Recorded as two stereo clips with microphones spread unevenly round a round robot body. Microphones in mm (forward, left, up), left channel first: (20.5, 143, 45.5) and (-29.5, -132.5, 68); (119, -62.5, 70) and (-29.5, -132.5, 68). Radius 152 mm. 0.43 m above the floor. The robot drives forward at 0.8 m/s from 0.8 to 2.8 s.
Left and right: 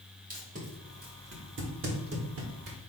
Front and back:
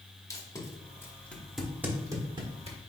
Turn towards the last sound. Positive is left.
turn(degrees=-125)